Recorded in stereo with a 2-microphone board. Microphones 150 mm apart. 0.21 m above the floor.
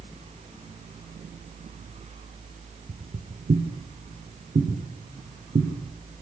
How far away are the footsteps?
About 3 m.